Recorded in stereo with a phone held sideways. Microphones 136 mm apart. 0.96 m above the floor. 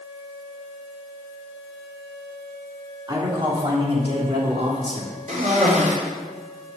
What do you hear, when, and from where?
3.1 s a man speaking: 35° right (ahead or behind), 3 m; by 5.1 s 55° right (ahead or behind), 3 m
5.3 s a cough: 70° right (ahead or behind), 3.5 m